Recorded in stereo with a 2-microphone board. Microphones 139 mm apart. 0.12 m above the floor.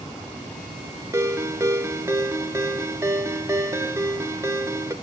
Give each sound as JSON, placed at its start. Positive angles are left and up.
{"t": 1.1, "sound": "a ringtone", "side_deg": -20, "distance_m": 0.9}